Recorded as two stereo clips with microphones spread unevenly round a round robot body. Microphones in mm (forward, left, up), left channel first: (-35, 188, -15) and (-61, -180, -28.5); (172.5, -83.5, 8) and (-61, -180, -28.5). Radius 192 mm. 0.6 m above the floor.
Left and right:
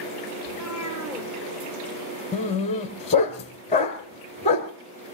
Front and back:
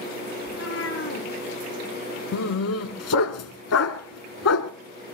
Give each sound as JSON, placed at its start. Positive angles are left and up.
{"t": 0.5, "sound": "a cat meowing", "azimuth_deg": -10, "distance_m": 4.5}
{"t": 2.3, "sound": "a dog barking", "azimuth_deg": 15, "distance_m": 1.5}